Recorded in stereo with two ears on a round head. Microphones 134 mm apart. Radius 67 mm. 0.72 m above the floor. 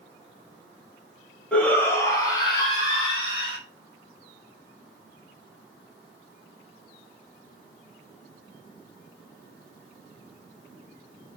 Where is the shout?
5° left (ahead or behind), 1.4 m; by 3.6 s 40° left (ahead or behind), 2 m.